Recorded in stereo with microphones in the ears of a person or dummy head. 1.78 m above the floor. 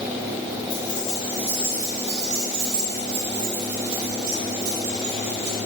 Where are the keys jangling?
15° left (ahead or behind), 1.4 m; by 5.6 s 75° right (ahead or behind), 3.5 m.